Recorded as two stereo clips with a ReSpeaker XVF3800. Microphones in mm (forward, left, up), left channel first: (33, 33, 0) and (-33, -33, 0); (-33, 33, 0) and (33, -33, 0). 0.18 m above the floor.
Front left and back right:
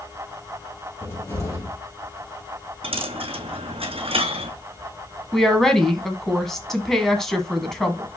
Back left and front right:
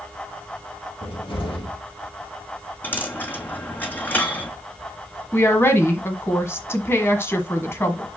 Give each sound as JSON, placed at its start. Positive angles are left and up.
{"t": 1.0, "sound": "a cupboard door", "azimuth_deg": 105, "distance_m": 3.0}
{"t": 2.8, "sound": "a dropped coin", "azimuth_deg": -155, "distance_m": 0.9}
{"t": 5.3, "sound": "a woman speaking", "azimuth_deg": 130, "distance_m": 1.4}